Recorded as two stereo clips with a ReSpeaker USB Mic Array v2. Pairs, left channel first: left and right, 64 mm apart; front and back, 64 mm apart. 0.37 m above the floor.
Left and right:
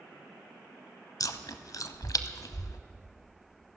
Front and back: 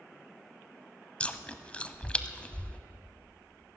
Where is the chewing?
70° left, 0.8 m.